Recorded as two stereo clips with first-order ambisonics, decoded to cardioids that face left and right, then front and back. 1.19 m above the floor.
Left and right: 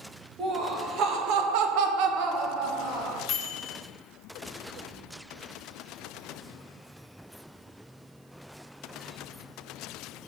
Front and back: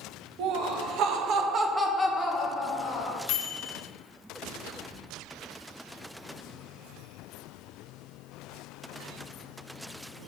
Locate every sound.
0.4 s laughter: 155° right, 1.9 m; by 3.2 s 40° right, 2.0 m
3.3 s a microwave: 35° left, 0.8 m